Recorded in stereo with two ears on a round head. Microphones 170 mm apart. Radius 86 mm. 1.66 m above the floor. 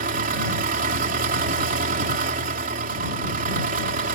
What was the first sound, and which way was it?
An engine running, 45° right (ahead or behind).